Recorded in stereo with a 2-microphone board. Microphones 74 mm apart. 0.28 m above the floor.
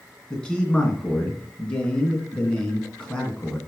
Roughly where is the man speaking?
Centre.